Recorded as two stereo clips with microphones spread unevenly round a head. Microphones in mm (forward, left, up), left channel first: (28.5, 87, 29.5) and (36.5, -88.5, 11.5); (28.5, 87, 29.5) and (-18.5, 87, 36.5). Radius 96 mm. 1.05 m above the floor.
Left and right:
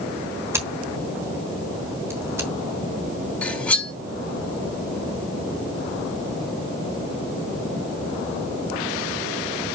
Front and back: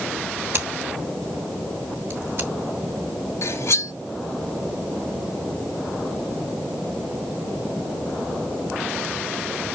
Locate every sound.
0.5 s scissors: 165° right, 1.1 m
3.4 s cutlery clinking: 10° left, 1.8 m